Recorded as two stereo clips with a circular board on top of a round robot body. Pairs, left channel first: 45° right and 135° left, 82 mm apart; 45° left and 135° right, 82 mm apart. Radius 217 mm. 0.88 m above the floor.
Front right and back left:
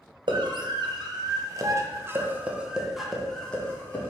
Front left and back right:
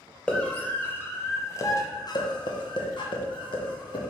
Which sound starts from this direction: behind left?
A scream, at 0.3 s.